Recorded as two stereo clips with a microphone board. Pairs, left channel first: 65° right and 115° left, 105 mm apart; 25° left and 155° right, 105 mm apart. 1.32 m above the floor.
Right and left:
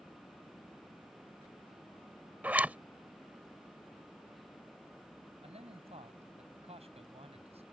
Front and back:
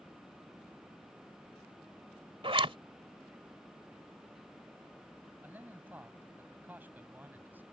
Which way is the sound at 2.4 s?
175° right.